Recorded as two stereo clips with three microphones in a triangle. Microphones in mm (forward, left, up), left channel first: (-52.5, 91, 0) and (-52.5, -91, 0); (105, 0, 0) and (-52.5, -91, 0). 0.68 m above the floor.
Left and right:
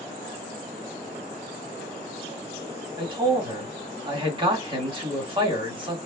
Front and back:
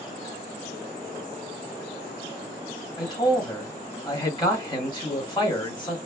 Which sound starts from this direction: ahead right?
A man speaking, at 3.0 s.